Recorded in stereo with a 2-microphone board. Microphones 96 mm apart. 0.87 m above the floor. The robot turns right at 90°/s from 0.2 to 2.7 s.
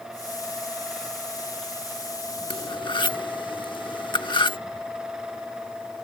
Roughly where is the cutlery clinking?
Left.